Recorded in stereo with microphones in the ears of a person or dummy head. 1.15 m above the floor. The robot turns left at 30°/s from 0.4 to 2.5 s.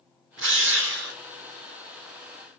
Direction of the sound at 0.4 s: 55° right (ahead or behind).